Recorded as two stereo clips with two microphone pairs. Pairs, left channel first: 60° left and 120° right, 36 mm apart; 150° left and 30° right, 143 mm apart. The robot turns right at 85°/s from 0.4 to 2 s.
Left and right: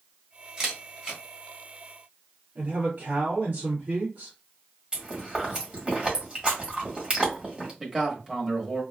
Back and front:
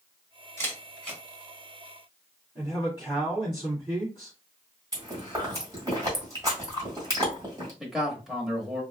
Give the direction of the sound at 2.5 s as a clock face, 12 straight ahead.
4 o'clock.